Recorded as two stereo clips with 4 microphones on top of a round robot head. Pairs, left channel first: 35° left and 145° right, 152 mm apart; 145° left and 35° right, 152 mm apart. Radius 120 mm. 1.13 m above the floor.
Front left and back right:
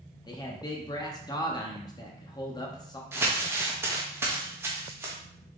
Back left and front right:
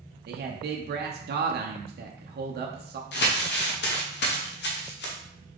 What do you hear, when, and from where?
0.3 s a man speaking: 30° right, 0.6 m
3.1 s crumpling: 140° left, 0.9 m